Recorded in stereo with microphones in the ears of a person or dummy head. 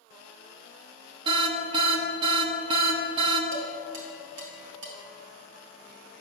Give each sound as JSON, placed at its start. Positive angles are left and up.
{"t": 1.2, "sound": "an alarm", "side_deg": -30, "distance_m": 0.9}
{"t": 3.5, "sound": "dishes clattering", "side_deg": -75, "distance_m": 2.5}